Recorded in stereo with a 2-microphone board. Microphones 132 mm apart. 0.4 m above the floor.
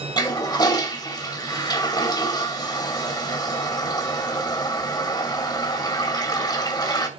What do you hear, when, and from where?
0.2 s a toilet flushing: 30° left (ahead or behind), 2.5 m